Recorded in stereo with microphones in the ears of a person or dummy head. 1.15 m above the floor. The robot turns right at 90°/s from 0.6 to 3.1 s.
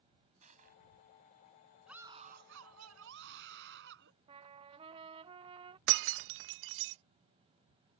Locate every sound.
0.4 s crushing: 40° right (ahead or behind); by 0.8 s 60° right (ahead or behind)
1.9 s a scream: straight behind; by 4.1 s 65° right
4.3 s a trumpet: 30° right (ahead or behind)
5.9 s breaking glass: 65° right (ahead or behind)